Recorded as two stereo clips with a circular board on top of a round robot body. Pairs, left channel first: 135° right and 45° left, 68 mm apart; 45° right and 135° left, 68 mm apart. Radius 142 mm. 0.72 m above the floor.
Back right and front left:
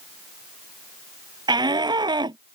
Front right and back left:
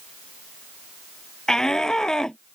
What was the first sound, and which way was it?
A shout, 35° left.